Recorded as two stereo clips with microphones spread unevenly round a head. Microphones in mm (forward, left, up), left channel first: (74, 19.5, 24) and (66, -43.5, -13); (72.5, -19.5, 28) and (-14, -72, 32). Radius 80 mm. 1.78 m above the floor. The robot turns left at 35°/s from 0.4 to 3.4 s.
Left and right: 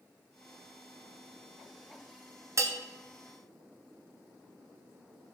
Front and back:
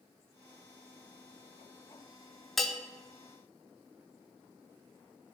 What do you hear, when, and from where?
2.6 s a bell: 55° right, 0.9 m; by 2.8 s 65° right, 0.9 m